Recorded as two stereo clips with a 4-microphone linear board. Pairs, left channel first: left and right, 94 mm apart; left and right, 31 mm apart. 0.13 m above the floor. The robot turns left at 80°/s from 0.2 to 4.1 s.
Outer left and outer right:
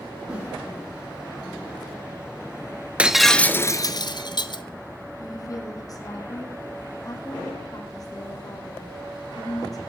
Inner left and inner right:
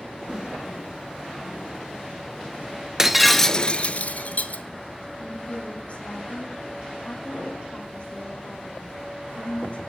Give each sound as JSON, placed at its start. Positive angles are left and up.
{"t": 0.3, "sound": "a whoosh", "side_deg": -10, "distance_m": 6.5}
{"t": 3.0, "sound": "breaking glass", "azimuth_deg": -160, "distance_m": 0.9}
{"t": 5.2, "sound": "a woman speaking", "side_deg": 40, "distance_m": 4.5}